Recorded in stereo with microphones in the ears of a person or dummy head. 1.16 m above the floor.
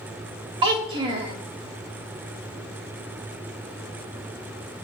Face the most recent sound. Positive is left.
turn(degrees=-30)  # may be behind; listen again after turning